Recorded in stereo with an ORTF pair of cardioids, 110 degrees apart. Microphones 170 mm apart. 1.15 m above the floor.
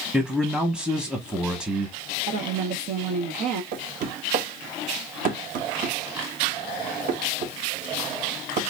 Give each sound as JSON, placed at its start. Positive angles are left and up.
{"t": 0.1, "sound": "a man speaking", "azimuth_deg": -5, "distance_m": 0.8}
{"t": 2.3, "sound": "a woman speaking", "azimuth_deg": -65, "distance_m": 0.8}
{"t": 3.7, "sound": "knocking", "azimuth_deg": -50, "distance_m": 0.9}